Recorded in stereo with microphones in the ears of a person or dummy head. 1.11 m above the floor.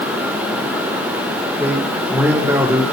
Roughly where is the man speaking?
Centre.